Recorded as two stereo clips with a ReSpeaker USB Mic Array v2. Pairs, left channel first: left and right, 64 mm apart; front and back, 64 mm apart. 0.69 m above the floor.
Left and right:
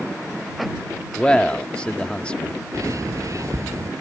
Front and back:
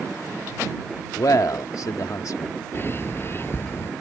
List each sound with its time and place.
1.2 s a man speaking: 15° left
2.7 s a bird: 55° right